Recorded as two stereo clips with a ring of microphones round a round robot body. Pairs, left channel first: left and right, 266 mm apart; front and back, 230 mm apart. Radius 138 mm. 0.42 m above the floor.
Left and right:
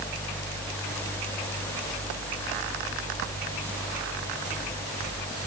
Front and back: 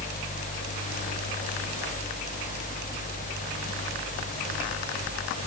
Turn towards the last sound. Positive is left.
No sound to turn to.